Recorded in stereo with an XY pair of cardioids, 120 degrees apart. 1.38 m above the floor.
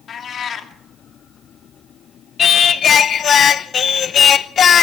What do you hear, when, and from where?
0.1 s a cat meowing: 45° left, 1.8 m
2.4 s singing: 45° left, 0.8 m